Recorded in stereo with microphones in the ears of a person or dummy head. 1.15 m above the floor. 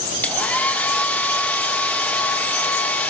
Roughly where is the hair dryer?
Centre.